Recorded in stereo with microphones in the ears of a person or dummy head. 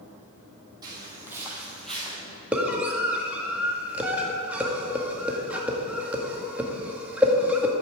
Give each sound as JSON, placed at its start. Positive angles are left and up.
{"t": 0.8, "sound": "footsteps", "side_deg": -20, "distance_m": 2.5}
{"t": 2.5, "sound": "a scream", "side_deg": -5, "distance_m": 1.8}